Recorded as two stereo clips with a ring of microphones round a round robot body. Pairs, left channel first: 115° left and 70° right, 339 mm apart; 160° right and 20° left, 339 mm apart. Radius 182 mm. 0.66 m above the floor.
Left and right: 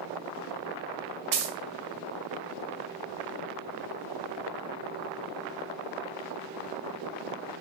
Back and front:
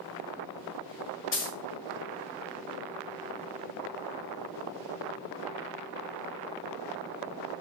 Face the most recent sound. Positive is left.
turn(degrees=-100)